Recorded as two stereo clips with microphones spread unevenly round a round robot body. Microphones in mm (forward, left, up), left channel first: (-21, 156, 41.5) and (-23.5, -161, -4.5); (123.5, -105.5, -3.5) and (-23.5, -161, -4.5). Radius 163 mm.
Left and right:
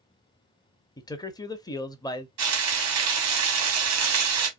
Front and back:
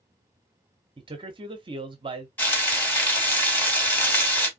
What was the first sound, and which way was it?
A man speaking, 170° left.